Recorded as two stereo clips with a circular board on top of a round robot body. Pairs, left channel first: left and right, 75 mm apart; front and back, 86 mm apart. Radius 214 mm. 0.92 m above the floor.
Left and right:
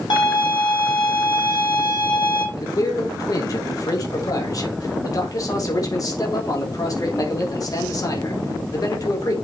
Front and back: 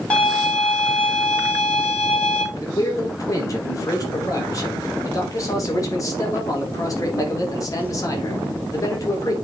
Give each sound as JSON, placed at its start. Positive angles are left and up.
{"t": 0.1, "sound": "a violin", "azimuth_deg": 75, "distance_m": 5.0}
{"t": 2.5, "sound": "a man speaking", "azimuth_deg": 50, "distance_m": 3.5}